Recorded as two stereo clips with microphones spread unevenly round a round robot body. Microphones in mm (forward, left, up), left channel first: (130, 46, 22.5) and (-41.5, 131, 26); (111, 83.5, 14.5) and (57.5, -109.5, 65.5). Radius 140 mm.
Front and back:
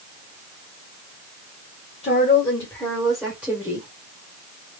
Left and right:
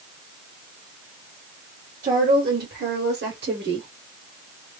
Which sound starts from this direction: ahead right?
A woman speaking, at 2.0 s.